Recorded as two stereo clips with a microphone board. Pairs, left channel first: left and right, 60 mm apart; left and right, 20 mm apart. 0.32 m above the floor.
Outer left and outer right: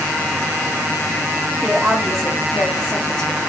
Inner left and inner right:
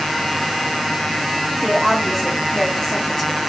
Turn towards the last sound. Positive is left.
turn(degrees=20)  # may be behind; listen again after turning